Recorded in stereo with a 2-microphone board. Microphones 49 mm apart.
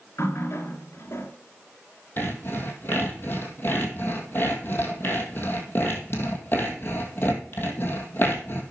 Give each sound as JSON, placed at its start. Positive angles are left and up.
{"t": 0.2, "sound": "a running tap", "side_deg": 60, "distance_m": 1.6}
{"t": 2.2, "sound": "sawing", "side_deg": 45, "distance_m": 1.8}